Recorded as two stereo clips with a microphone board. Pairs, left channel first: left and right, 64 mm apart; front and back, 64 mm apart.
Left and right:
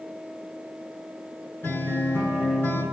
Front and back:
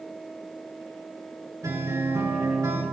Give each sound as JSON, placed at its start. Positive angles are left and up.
{"t": 1.6, "sound": "a guitar", "azimuth_deg": 150, "distance_m": 8.0}